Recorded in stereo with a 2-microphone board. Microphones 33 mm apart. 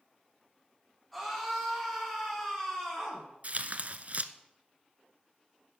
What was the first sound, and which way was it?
A scream, 5° left (ahead or behind).